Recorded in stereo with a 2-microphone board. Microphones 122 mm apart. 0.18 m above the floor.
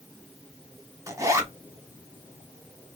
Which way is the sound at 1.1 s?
25° right (ahead or behind).